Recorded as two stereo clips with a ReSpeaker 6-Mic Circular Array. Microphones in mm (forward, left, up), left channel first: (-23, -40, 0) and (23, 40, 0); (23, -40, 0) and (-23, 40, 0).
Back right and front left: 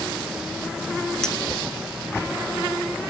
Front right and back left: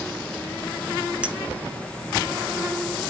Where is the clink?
170° left, 0.6 m.